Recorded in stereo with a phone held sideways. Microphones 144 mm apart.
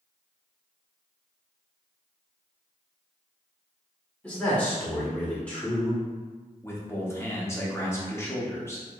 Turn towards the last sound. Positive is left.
turn(degrees=20)  # may be behind; listen again after turning